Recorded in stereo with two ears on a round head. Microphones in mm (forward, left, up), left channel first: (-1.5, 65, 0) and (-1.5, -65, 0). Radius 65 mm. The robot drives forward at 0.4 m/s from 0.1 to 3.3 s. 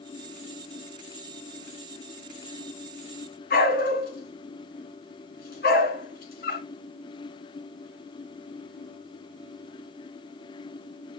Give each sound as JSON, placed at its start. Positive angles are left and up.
{"t": 3.5, "sound": "a dog barking", "side_deg": 70, "distance_m": 2.5}